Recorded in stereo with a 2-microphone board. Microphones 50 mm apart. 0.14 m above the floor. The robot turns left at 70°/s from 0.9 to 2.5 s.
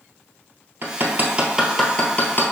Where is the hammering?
55° right (ahead or behind), 1.0 m; by 2.5 s 45° left (ahead or behind), 1.0 m.